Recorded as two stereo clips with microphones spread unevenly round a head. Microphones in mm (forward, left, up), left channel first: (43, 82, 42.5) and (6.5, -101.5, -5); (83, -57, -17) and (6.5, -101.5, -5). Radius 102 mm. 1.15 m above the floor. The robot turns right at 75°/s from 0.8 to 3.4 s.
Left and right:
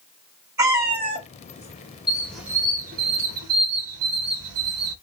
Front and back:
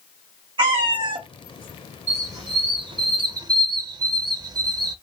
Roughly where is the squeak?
Behind left.